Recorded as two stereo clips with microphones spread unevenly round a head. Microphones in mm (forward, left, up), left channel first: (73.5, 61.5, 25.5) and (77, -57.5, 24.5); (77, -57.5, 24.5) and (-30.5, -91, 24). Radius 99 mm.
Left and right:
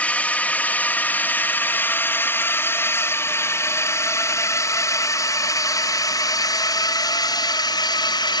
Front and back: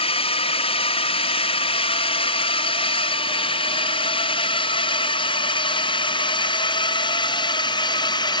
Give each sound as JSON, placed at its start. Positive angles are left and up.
{"t": 0.0, "sound": "a drone", "azimuth_deg": 15}